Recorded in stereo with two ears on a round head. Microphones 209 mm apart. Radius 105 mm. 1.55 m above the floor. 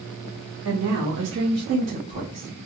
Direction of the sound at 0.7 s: 75° right (ahead or behind).